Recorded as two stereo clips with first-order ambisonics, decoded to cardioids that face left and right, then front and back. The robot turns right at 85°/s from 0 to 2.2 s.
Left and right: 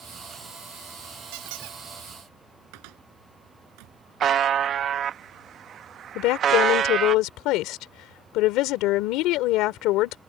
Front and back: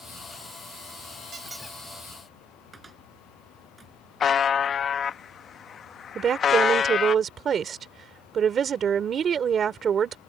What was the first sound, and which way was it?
A squeak, 110° right.